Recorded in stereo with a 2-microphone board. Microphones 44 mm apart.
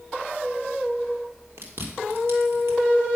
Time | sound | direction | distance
1.6 | chewing | 65° right (ahead or behind) | 3.5 m